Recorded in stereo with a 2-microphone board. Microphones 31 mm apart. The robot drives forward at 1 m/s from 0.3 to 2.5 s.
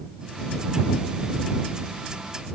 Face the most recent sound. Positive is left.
No sound to turn to.